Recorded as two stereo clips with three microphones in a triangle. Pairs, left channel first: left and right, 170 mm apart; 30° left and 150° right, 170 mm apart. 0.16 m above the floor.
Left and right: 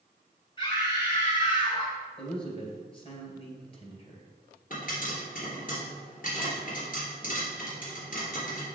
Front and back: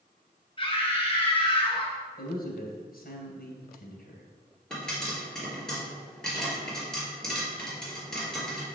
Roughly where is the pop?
Behind left.